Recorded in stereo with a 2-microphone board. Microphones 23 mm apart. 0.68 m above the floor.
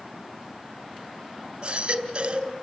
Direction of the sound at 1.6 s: 40° right (ahead or behind).